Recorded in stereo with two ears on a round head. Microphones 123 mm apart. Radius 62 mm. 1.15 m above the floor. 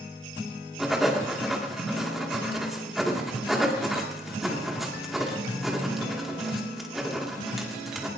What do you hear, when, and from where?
0.8 s writing: centre (ahead or behind), 2.5 m